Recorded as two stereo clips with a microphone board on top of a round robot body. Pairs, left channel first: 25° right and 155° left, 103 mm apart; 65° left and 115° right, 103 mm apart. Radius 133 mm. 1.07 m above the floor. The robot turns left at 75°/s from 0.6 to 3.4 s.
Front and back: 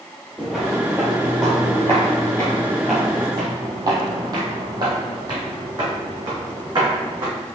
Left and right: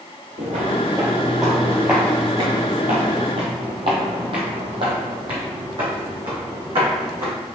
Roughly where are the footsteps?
Behind right.